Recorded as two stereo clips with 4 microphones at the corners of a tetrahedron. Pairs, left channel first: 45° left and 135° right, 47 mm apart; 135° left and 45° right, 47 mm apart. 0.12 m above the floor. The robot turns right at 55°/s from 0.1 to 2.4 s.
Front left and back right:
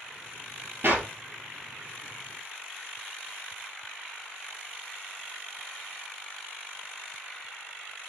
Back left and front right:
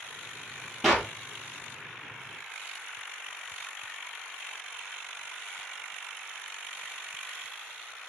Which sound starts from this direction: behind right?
A clap, at 0.8 s.